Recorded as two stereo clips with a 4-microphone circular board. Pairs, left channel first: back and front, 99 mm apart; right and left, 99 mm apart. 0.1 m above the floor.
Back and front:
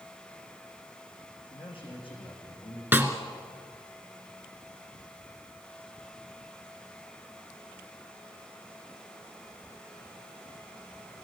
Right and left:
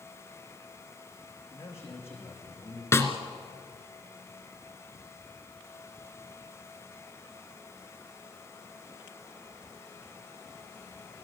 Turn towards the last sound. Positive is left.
turn(degrees=-55)